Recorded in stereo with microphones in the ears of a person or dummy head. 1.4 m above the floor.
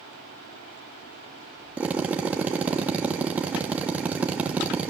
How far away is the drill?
About 1.2 m.